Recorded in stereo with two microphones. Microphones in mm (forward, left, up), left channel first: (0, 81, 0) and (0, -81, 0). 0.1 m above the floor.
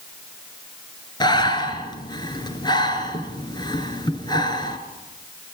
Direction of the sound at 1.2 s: 25° left (ahead or behind).